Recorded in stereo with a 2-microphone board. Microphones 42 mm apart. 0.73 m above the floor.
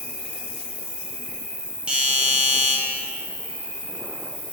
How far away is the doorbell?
About 1.4 m.